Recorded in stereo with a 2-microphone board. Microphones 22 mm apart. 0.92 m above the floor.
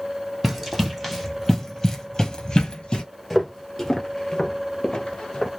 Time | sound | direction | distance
0.4 | running footsteps | 5° right (ahead or behind) | 1.6 m
3.3 | footsteps | 5° left (ahead or behind) | 1.0 m